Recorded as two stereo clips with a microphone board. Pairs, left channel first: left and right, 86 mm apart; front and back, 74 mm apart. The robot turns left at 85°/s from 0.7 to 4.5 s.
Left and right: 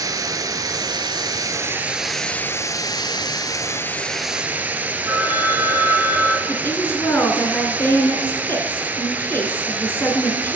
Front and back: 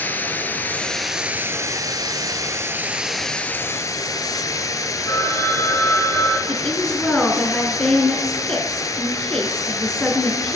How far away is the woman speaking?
About 1.7 m.